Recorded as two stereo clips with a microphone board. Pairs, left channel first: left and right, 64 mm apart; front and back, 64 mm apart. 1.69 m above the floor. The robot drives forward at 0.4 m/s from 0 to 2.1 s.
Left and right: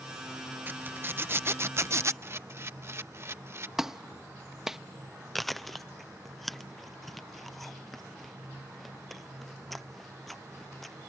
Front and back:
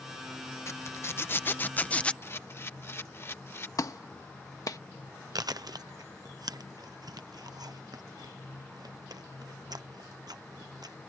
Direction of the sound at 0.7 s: 35° right.